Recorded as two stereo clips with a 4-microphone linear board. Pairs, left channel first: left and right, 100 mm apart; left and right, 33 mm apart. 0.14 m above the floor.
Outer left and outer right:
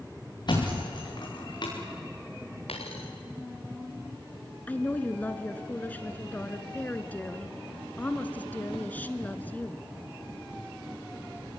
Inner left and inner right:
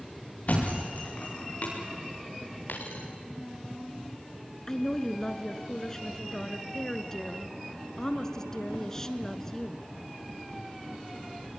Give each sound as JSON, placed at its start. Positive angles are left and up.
{"t": 0.5, "sound": "a thud", "side_deg": 50, "distance_m": 7.5}
{"t": 2.7, "sound": "a dropped coin", "side_deg": 80, "distance_m": 4.5}
{"t": 4.7, "sound": "a woman speaking", "side_deg": 15, "distance_m": 1.3}